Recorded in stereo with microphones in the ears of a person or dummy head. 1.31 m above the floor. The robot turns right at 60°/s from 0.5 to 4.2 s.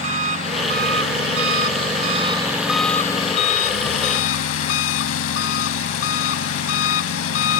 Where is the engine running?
135° right; by 7.6 s 85° left.